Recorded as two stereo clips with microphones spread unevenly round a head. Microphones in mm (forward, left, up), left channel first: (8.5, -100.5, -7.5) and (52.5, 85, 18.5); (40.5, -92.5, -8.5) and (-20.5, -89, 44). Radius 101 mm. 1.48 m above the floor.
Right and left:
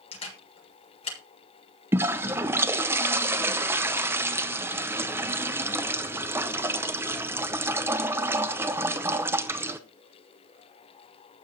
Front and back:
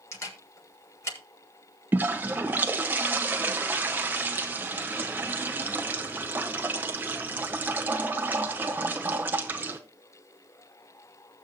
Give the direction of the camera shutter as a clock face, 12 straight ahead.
1 o'clock.